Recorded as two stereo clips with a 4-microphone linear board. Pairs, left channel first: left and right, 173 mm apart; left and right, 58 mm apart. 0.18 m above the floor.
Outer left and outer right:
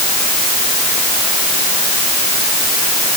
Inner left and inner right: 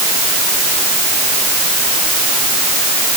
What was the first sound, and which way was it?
Only background noise.